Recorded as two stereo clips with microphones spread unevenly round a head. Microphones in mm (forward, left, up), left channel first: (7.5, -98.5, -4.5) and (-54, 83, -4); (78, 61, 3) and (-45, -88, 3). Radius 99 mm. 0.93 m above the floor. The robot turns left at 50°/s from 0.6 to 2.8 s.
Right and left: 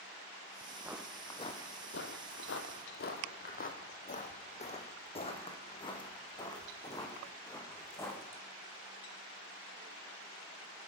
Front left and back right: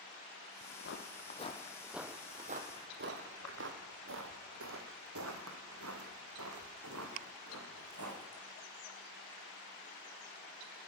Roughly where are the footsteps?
Ahead left.